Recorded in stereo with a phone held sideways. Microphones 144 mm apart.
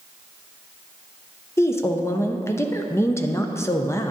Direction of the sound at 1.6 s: 20° left (ahead or behind).